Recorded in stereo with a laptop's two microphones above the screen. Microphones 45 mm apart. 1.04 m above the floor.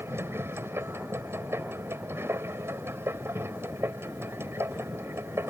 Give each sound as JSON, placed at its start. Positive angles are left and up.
{"t": 0.0, "sound": "a machine running", "side_deg": -70}